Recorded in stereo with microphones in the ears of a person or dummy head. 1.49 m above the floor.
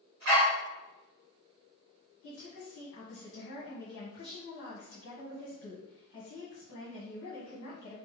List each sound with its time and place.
0.2 s a dog barking: 60° right (ahead or behind), 1.9 m
2.2 s a woman speaking: 65° left (ahead or behind), 1.4 m